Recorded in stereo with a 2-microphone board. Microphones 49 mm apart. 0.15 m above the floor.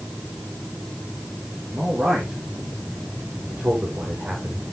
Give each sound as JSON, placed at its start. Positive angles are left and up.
{"t": 1.7, "sound": "a man speaking", "side_deg": -20, "distance_m": 6.5}